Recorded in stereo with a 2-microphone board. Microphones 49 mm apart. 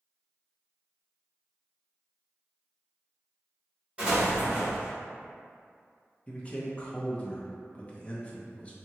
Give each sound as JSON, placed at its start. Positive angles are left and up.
{"t": 4.0, "sound": "an explosion", "side_deg": -25, "distance_m": 1.7}
{"t": 6.3, "sound": "a man speaking", "side_deg": 25, "distance_m": 0.5}